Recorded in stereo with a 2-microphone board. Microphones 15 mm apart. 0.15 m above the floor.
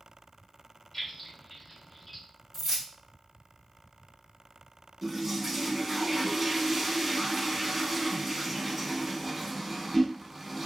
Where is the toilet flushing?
15° right (ahead or behind), 0.6 m.